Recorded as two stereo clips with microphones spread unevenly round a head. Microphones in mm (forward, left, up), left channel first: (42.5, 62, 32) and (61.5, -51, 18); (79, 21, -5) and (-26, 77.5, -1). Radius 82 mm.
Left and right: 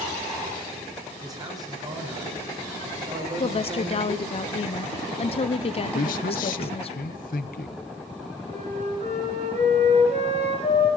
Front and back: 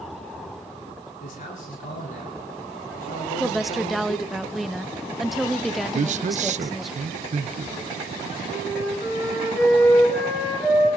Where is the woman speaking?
60° left, 0.7 m.